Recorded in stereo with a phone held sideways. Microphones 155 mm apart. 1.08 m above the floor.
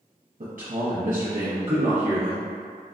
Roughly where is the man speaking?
Right.